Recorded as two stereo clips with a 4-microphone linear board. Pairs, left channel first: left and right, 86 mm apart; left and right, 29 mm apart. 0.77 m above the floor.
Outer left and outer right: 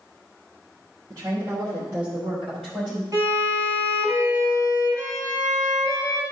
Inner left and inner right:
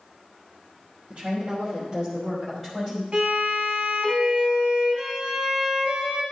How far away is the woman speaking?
About 1.7 m.